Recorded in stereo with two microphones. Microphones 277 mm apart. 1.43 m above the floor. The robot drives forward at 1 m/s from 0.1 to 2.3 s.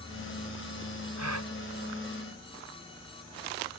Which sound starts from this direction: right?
A gasp, at 1.2 s.